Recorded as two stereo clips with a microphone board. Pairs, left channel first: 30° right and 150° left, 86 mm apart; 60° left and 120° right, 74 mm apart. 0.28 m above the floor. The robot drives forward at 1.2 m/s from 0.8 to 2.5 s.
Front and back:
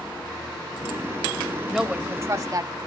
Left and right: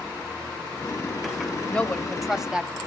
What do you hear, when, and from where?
1.7 s a woman speaking: 60° left, 0.9 m; by 2.8 s 160° left, 1.2 m